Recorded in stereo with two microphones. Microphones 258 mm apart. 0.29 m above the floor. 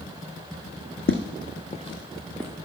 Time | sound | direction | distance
1.1 | footsteps | 50° left (ahead or behind) | 1.0 m